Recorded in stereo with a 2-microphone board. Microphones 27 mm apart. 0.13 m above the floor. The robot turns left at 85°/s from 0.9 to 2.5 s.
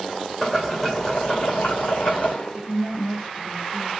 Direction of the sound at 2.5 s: 20° right (ahead or behind).